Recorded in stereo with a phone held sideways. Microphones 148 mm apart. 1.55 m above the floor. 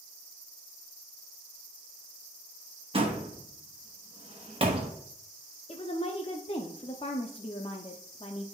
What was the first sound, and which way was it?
A door slam, 35° right (ahead or behind).